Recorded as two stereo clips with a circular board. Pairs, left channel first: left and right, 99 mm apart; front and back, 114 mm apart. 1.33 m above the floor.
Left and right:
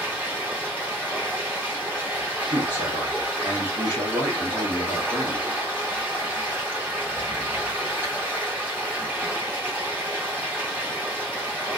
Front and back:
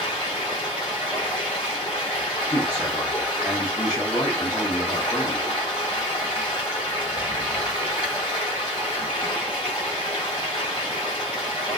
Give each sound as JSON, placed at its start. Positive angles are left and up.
{"t": 0.0, "sound": "running water", "azimuth_deg": -25, "distance_m": 1.5}
{"t": 2.5, "sound": "a man speaking", "azimuth_deg": -55, "distance_m": 1.0}